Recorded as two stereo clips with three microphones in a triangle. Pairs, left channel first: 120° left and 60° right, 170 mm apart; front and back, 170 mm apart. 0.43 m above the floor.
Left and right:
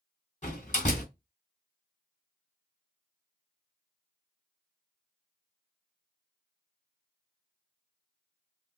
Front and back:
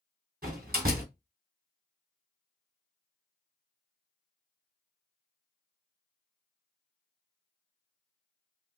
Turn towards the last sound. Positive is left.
turn(degrees=160)